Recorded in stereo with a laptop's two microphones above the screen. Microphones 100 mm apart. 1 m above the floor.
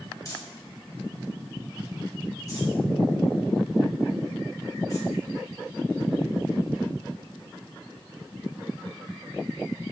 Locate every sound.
0.2 s crumpling: 35° left (ahead or behind), 2.5 m